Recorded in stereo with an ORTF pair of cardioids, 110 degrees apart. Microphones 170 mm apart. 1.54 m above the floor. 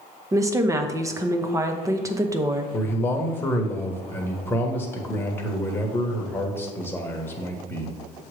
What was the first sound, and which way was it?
A woman speaking, 20° right.